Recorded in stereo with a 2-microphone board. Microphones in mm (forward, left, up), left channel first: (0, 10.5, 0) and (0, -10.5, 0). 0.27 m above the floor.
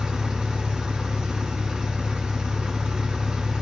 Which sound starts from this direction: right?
An engine running, at 0.0 s.